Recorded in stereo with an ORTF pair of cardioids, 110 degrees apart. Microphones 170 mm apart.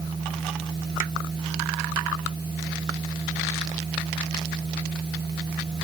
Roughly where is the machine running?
Ahead right.